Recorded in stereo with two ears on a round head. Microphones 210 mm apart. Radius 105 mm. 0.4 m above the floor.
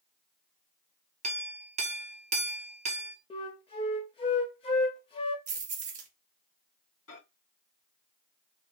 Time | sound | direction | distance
1.2 | a clink | 30° right (ahead or behind) | 0.7 m
3.3 | a flute | 25° left (ahead or behind) | 0.8 m
5.5 | keys jangling | 30° right (ahead or behind) | 1.0 m
7.1 | a microwave | 65° left (ahead or behind) | 3 m